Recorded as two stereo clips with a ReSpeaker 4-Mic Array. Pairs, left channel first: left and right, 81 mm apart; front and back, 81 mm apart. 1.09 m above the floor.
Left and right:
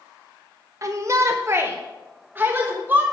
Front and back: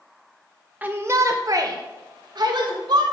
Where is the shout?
115° right, 0.5 m; by 3.0 s 160° right, 1.5 m.